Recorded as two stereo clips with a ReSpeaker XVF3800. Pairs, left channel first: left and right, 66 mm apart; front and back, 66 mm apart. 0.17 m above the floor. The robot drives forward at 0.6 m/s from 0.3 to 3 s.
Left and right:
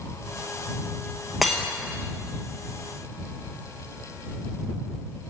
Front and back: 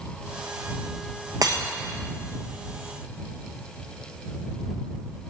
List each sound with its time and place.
1.4 s breaking glass: straight behind, 1.2 m